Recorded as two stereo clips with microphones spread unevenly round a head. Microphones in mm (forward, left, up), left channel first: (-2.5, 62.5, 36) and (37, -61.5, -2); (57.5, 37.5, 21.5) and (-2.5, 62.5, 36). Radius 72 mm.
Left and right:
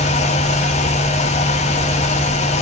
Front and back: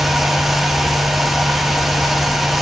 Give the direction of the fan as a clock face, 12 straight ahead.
10 o'clock.